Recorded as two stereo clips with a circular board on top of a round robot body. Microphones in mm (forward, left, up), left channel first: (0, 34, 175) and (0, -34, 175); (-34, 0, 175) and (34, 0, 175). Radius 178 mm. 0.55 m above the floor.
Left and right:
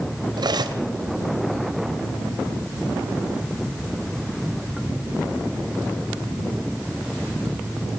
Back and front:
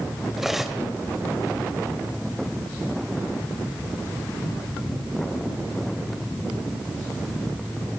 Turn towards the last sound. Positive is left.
turn(degrees=-85)